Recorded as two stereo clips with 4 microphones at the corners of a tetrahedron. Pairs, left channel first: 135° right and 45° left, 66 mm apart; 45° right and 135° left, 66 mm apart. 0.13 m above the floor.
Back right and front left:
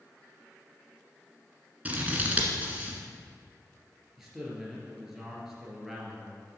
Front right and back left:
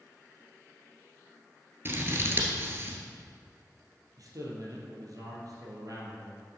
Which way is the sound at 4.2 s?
130° left.